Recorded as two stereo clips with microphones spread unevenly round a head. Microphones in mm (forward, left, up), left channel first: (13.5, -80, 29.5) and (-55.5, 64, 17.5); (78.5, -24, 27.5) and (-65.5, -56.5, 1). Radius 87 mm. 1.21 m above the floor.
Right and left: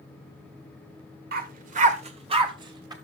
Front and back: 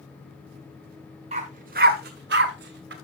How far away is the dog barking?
About 1.3 m.